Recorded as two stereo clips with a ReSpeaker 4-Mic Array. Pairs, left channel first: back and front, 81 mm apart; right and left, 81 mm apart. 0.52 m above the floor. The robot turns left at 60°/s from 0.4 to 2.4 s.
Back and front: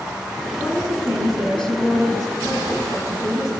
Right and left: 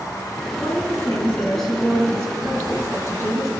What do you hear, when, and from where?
0.6 s a woman speaking: 115° right, 6 m; by 3.5 s 135° left, 6 m